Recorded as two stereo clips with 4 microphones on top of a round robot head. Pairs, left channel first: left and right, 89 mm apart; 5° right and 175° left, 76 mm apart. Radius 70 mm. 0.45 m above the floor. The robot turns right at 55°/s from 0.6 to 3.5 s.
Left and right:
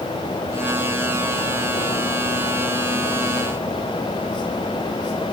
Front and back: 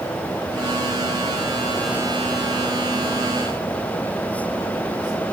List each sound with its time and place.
Only background noise.